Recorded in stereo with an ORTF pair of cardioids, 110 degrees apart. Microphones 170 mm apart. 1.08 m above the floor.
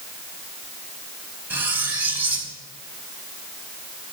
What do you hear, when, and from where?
1.5 s cutlery clinking: 10° right, 5 m